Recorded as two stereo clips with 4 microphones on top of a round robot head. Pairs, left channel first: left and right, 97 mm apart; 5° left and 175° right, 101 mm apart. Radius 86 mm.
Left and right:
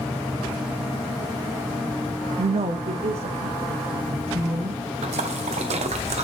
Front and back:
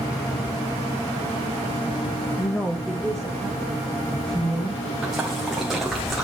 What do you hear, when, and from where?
2.4 s a woman speaking: 65° right, 0.5 m; by 4.9 s 85° right, 2.5 m
5.0 s a splash: 85° right, 1.3 m